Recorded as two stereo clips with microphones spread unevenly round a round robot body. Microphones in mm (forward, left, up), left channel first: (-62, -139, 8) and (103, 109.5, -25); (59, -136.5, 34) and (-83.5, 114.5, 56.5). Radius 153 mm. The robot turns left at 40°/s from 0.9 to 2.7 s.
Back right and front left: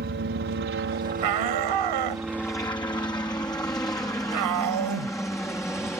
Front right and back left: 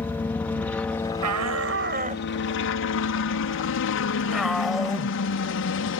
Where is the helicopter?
20° left; by 6.0 s 40° right.